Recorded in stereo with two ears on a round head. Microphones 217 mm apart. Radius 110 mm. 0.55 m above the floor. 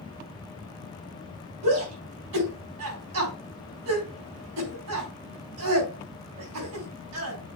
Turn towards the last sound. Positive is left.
turn(degrees=-70)  # may be behind; listen again after turning